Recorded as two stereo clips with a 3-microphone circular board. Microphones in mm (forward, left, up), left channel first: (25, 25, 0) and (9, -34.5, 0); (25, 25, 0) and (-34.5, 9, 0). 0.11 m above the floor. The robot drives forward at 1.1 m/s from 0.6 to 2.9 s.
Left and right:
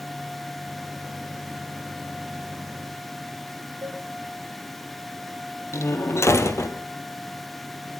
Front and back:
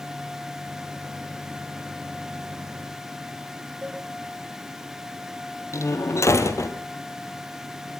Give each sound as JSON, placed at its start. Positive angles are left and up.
{"t": 3.8, "sound": "a cowbell", "azimuth_deg": -105, "distance_m": 7.0}
{"t": 5.7, "sound": "a door slam", "azimuth_deg": 40, "distance_m": 2.5}